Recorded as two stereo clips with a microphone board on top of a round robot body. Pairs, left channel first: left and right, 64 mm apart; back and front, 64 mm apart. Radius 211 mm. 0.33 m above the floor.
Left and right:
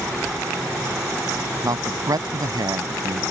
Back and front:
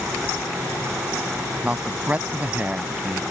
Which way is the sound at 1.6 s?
70° right.